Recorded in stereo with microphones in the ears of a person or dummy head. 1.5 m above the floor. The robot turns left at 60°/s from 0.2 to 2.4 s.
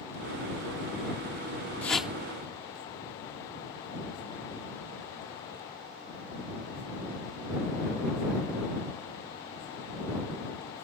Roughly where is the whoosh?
Centre.